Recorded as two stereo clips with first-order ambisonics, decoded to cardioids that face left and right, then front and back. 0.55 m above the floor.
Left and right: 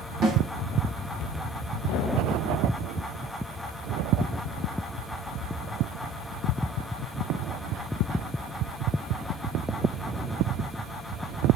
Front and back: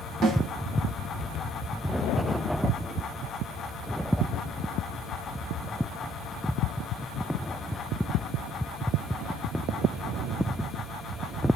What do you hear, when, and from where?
0.2 s a snare drum: 135° right, 1.2 m